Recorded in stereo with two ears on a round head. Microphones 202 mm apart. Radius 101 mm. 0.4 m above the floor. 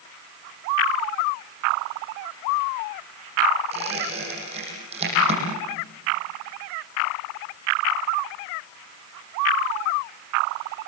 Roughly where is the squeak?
Right.